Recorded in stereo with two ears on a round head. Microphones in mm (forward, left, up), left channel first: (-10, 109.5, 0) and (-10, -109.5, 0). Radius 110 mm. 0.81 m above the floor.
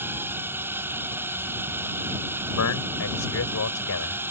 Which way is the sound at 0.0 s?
10° right (ahead or behind).